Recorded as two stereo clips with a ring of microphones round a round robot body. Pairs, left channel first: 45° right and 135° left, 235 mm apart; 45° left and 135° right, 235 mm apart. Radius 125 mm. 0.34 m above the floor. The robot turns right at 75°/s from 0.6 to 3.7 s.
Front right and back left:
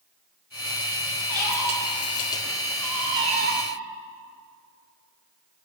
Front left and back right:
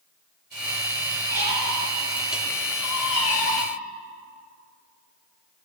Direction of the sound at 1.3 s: 80° right.